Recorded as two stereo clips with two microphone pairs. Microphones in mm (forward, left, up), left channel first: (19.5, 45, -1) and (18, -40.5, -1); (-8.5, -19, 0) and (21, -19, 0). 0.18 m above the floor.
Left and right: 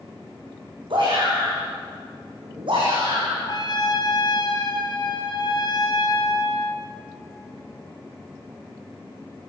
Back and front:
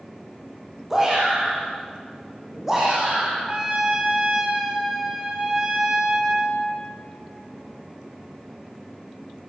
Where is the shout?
75° right, 9.5 m.